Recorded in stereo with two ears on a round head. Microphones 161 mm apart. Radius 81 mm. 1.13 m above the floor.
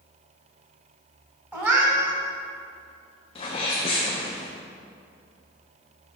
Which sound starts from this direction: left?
A sneeze, at 3.4 s.